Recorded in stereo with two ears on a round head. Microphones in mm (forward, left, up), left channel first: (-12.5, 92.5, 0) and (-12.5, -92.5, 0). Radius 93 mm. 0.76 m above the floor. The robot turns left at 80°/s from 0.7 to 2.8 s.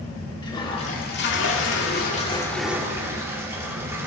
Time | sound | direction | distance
0.4 | a toilet flushing | 155° left | 1.9 m